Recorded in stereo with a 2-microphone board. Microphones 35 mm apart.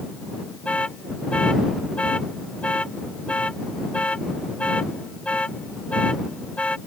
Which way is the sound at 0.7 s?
35° left (ahead or behind).